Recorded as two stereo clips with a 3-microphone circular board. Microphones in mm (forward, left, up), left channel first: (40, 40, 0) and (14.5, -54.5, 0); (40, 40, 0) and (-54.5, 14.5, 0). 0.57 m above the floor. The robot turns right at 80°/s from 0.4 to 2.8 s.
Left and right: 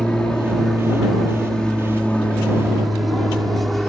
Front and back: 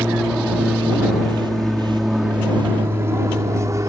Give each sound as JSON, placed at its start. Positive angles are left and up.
{"t": 0.0, "sound": "an aircraft", "azimuth_deg": 135}